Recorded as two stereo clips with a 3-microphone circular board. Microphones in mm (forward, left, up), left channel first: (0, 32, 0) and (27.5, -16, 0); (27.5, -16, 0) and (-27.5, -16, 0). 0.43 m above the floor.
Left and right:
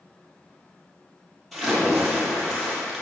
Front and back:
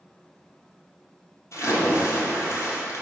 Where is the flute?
No flute in this recording.